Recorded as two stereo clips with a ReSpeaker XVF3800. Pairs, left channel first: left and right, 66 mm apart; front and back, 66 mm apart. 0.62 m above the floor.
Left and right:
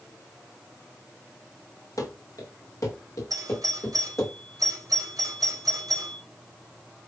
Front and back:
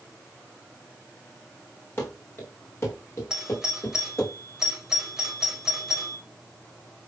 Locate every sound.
2.0 s running footsteps: 60° left, 4 m; by 4.3 s 45° left, 7 m
3.3 s a doorbell: 100° right, 4.5 m